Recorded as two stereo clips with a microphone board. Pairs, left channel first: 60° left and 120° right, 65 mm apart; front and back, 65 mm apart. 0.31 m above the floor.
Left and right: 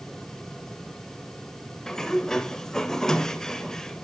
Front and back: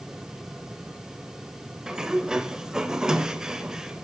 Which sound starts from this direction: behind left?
A sliding door, at 1.9 s.